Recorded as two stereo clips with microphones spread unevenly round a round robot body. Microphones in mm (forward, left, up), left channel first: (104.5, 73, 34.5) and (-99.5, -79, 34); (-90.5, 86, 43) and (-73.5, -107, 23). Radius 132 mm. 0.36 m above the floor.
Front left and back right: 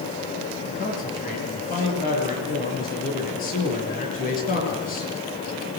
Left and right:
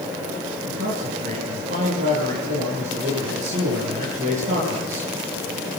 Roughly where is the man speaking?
Ahead.